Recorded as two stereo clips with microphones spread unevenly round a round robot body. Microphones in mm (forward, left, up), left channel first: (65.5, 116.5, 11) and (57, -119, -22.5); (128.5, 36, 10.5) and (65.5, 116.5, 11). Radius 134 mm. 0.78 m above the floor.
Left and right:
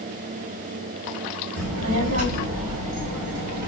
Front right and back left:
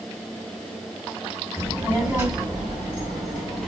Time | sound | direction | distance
1.6 | a child speaking | 130° right | 2.5 m